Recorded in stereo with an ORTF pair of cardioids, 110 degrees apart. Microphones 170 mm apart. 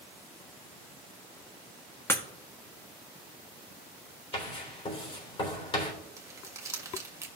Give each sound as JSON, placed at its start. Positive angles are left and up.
{"t": 2.1, "sound": "breaking glass", "azimuth_deg": 15, "distance_m": 1.3}
{"t": 4.3, "sound": "writing", "azimuth_deg": 35, "distance_m": 3.5}
{"t": 6.2, "sound": "crumpling", "azimuth_deg": -20, "distance_m": 1.4}